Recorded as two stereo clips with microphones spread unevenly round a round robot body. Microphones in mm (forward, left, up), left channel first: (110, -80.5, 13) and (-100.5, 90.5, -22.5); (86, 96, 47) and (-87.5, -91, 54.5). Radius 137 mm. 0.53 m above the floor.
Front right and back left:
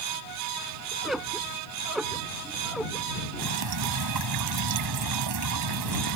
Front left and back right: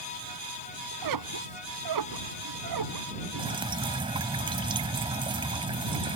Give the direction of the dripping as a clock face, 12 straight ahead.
7 o'clock.